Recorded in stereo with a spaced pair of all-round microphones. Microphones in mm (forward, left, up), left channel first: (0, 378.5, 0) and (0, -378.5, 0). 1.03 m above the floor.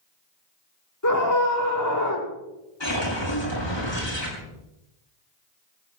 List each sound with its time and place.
1.0 s a scream: 25° left (ahead or behind), 5 m
2.8 s a whoosh: 30° left (ahead or behind), 6.5 m